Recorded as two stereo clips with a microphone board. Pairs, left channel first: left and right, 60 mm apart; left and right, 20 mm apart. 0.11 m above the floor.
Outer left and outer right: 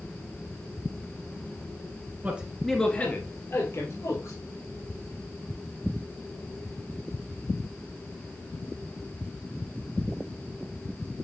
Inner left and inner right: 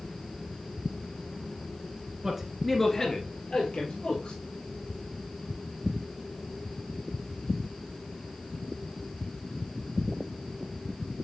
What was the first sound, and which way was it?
A man speaking, 25° right (ahead or behind).